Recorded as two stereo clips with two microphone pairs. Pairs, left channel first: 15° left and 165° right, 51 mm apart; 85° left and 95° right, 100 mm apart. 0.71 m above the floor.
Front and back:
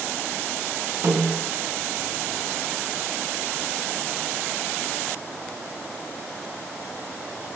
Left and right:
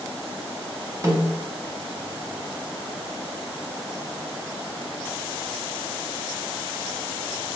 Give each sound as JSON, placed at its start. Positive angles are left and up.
{"t": 1.0, "sound": "a snare drum", "azimuth_deg": -155, "distance_m": 2.5}